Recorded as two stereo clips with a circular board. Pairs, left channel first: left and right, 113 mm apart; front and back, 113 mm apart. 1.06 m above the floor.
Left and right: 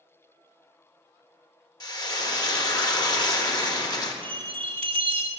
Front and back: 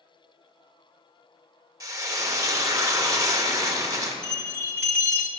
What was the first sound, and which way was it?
Frying, 130° left.